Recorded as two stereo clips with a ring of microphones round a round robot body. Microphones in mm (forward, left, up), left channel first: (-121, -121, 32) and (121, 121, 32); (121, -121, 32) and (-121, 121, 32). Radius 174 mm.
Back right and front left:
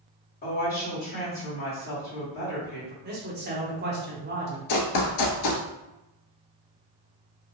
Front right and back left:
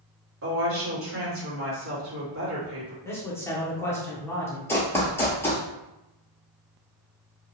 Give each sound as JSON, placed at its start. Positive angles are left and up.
{"t": 0.4, "sound": "a woman speaking", "azimuth_deg": 170, "distance_m": 1.8}
{"t": 3.0, "sound": "a man speaking", "azimuth_deg": 30, "distance_m": 0.9}
{"t": 4.7, "sound": "running footsteps", "azimuth_deg": -125, "distance_m": 0.6}